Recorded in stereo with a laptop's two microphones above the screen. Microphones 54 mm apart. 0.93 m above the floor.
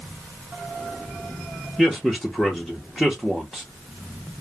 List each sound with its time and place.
1.8 s a man speaking: centre (ahead or behind), 0.8 m